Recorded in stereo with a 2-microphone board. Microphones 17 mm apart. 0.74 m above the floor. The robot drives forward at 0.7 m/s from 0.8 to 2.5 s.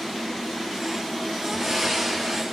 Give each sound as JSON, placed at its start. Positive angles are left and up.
{"t": 1.5, "sound": "breathing", "side_deg": -5, "distance_m": 8.0}